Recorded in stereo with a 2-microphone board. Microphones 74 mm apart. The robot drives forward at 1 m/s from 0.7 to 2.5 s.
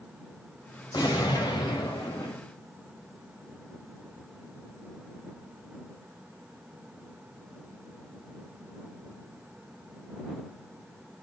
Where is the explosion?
70° left (ahead or behind), 3 m; by 2.4 s 80° left, 3 m.